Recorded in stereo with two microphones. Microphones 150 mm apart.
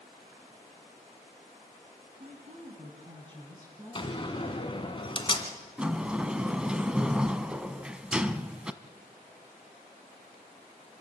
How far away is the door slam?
About 1.7 m.